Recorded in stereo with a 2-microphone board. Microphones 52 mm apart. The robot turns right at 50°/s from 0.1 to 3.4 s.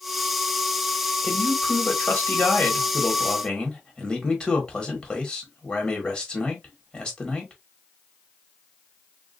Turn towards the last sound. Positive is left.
turn(degrees=150)